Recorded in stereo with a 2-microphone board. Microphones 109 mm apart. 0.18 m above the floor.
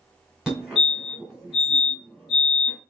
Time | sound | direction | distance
0.5 | a fire alarm | 5° right (ahead or behind) | 2.5 m